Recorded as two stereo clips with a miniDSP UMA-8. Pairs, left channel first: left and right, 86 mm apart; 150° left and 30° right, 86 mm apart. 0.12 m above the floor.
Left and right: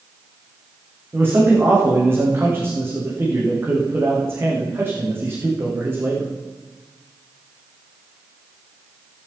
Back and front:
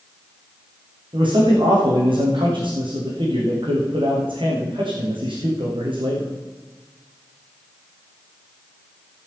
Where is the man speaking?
30° right, 6.5 m.